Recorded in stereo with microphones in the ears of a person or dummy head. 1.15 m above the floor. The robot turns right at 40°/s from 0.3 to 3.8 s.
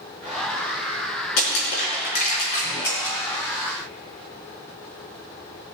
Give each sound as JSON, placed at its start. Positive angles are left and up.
{"t": 1.4, "sound": "crushing", "side_deg": 75, "distance_m": 4.5}